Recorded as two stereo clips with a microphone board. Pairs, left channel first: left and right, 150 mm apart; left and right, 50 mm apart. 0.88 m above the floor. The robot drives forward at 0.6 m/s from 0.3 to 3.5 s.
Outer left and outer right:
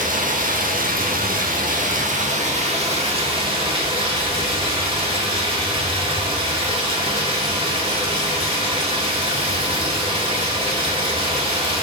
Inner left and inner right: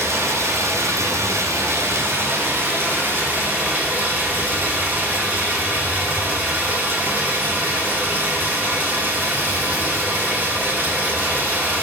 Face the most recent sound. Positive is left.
turn(degrees=-40)  # may be behind; listen again after turning